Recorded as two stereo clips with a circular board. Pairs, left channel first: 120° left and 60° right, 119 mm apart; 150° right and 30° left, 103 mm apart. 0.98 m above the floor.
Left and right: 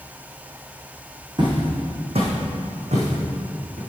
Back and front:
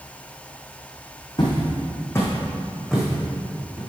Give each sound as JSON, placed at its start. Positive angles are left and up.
{"t": 1.4, "sound": "footsteps", "azimuth_deg": -105, "distance_m": 2.0}